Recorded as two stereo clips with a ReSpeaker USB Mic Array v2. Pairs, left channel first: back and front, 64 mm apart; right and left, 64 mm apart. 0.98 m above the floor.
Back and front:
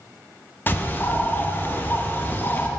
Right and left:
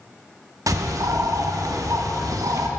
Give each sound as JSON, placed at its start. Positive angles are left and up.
{"t": 0.7, "sound": "a bird", "azimuth_deg": 120, "distance_m": 0.7}